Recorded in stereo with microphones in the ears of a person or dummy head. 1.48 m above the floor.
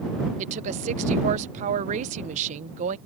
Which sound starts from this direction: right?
A woman speaking, at 0.4 s.